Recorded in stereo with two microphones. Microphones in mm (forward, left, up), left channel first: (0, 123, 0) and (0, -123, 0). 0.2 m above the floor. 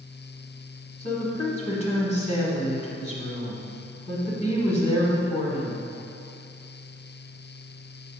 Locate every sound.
1.0 s a woman speaking: 25° left (ahead or behind), 1.5 m